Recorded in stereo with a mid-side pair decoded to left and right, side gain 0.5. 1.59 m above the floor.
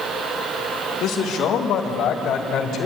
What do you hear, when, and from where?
1.0 s a man speaking: 65° left, 4 m